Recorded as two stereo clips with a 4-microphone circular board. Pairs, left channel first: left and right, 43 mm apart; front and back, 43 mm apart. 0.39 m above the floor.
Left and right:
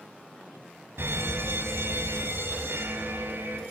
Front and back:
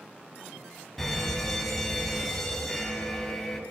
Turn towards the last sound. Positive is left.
turn(degrees=-85)